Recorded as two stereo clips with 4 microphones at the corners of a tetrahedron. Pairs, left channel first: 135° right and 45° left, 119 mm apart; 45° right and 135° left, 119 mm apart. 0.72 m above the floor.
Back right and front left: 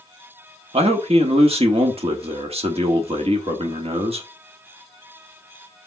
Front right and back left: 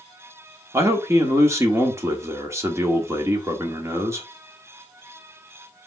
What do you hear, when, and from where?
0.7 s a man speaking: 70° left, 1.3 m